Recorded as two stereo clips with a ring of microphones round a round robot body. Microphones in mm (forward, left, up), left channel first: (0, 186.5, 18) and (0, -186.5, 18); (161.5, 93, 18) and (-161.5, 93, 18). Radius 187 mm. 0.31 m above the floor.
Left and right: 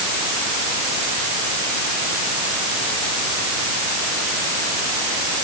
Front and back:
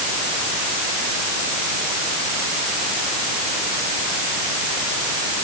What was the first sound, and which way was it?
Only background noise.